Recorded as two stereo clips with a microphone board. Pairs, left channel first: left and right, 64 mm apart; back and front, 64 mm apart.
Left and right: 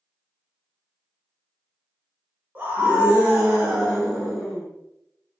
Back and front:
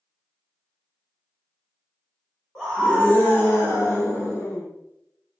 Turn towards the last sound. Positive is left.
turn(degrees=180)